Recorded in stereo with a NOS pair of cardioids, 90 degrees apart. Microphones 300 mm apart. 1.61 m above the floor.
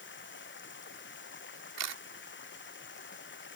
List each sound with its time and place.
0.0 s running water: 40° left
1.8 s a camera shutter: 60° right